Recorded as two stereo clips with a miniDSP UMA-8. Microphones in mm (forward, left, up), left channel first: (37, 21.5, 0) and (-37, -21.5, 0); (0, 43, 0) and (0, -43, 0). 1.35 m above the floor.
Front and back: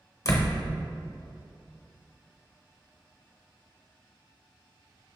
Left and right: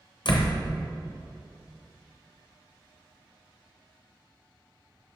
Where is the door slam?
80° left, 0.8 m.